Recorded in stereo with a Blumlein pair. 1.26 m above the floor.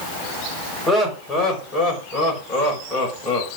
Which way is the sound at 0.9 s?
10° left.